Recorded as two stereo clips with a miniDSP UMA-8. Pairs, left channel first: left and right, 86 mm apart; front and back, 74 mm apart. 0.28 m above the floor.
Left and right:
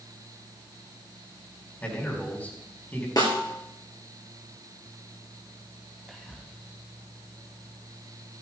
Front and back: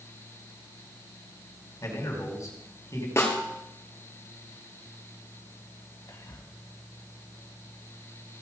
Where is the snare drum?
50° left, 2.5 m.